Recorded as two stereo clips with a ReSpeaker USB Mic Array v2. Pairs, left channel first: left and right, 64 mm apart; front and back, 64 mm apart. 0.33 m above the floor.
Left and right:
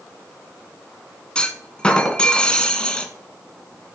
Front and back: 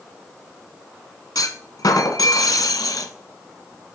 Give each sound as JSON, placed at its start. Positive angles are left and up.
{"t": 1.4, "sound": "a clunk", "azimuth_deg": 15, "distance_m": 0.9}